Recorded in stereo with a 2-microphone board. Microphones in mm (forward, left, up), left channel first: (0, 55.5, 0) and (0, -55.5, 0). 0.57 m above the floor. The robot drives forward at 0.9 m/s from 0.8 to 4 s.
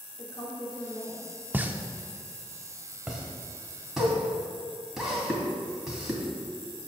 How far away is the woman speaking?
About 1.8 m.